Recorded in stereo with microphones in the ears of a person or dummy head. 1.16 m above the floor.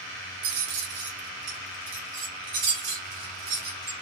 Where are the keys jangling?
70° right (ahead or behind), 1.2 m; by 3.9 s 80° right, 3 m.